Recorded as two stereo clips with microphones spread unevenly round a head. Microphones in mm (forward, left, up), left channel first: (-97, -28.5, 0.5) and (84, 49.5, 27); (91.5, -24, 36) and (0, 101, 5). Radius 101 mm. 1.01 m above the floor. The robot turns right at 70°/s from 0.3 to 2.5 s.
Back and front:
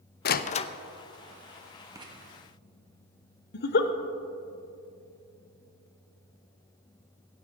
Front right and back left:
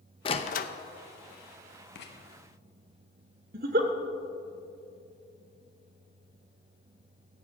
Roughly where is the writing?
Ahead right.